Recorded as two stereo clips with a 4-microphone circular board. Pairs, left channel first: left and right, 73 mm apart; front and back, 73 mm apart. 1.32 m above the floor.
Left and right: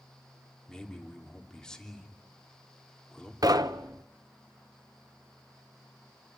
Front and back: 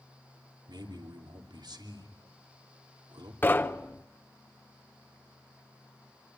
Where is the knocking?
60° right, 1.0 m.